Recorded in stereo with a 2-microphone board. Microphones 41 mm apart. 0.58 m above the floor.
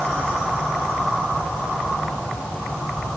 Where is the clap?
I don't hear a clap.